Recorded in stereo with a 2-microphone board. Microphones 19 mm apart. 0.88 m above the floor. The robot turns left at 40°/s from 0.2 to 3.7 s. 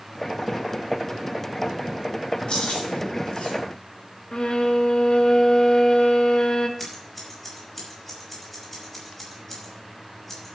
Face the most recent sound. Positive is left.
turn(degrees=20)  # may be behind; listen again after turning